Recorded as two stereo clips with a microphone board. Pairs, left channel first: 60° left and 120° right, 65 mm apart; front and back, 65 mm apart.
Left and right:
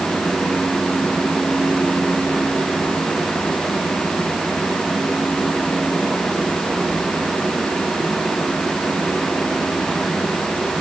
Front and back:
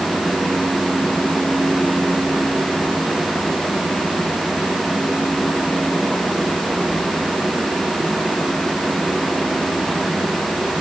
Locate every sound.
Only background noise.